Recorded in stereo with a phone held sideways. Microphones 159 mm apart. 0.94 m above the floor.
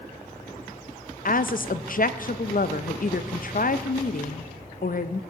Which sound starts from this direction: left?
A woman speaking, at 1.2 s.